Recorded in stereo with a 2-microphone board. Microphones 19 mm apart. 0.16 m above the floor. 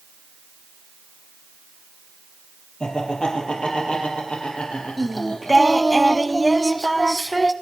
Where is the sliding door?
No sliding door in this recording.